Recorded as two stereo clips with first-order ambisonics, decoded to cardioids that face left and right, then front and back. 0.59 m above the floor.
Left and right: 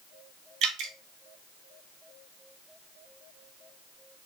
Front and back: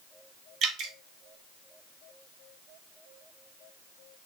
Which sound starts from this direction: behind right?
Dripping, at 0.6 s.